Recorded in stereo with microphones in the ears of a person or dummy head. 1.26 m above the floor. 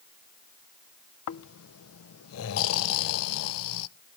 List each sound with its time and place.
1.3 s snoring: 85° left, 0.5 m